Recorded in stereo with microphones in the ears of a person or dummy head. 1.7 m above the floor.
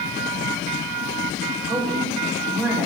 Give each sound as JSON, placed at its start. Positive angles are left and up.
{"t": 1.7, "sound": "a woman speaking", "side_deg": -25, "distance_m": 4.5}